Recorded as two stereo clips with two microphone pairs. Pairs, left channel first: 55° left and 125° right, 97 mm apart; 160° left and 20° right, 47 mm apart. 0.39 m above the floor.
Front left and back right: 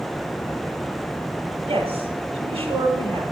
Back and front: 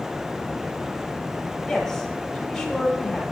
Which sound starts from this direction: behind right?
A woman speaking, at 1.7 s.